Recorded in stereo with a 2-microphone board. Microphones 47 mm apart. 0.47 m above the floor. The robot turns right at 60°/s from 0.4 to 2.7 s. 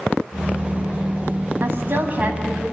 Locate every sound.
1.6 s a woman speaking: 70° right, 4 m; by 2.6 s 5° right, 4 m